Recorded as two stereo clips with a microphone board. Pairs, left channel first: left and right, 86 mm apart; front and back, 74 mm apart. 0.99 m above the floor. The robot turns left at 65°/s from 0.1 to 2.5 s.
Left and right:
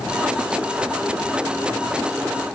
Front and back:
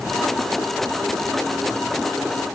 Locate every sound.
Only background noise.